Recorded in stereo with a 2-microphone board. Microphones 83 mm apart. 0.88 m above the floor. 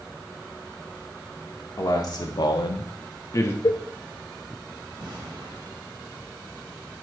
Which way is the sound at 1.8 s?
50° left (ahead or behind).